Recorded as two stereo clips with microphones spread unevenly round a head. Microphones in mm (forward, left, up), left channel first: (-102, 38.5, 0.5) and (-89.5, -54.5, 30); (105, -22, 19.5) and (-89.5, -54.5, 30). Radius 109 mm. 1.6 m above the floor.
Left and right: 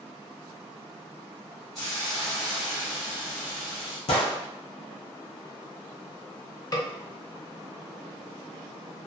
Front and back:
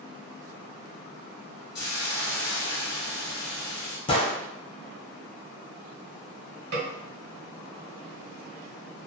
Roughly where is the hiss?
Ahead.